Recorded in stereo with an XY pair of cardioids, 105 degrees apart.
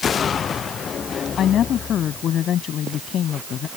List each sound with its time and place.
1.4 s a woman speaking: 65° left